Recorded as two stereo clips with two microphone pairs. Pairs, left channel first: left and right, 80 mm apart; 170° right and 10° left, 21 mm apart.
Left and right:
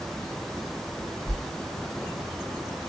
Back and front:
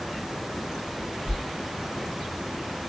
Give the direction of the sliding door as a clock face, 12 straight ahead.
1 o'clock.